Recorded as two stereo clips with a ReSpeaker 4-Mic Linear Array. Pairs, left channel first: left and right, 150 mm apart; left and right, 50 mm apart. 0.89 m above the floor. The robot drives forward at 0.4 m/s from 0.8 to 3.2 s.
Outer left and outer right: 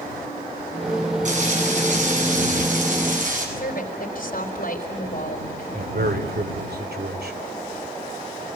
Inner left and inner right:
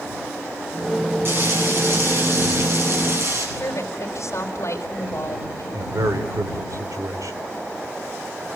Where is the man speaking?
80° right, 2.5 m.